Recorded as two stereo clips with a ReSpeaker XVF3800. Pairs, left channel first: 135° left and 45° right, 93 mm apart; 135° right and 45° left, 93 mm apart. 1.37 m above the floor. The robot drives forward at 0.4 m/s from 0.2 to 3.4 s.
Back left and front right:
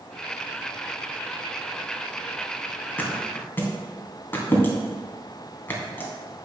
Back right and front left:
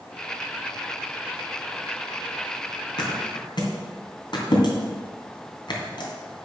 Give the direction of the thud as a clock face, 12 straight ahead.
5 o'clock.